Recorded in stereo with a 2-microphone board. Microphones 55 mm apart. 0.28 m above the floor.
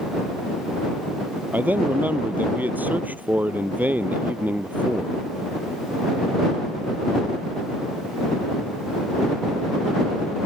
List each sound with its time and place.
1.5 s a man speaking: 30° right (ahead or behind)